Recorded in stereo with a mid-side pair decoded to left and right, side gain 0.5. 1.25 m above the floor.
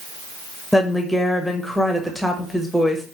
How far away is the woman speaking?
About 1.2 m.